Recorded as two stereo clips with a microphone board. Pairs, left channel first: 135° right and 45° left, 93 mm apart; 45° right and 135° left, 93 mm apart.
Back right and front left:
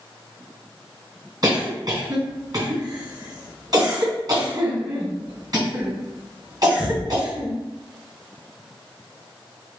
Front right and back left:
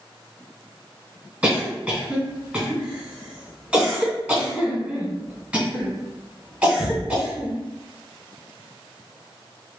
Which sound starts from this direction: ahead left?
A cough, at 1.4 s.